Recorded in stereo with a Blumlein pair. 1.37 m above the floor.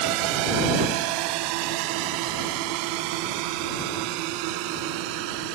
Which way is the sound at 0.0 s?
45° right.